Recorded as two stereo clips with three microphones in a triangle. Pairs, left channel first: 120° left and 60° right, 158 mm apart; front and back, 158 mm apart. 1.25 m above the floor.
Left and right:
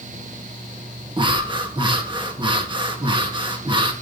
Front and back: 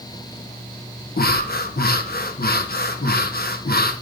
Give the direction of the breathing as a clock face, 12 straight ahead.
12 o'clock.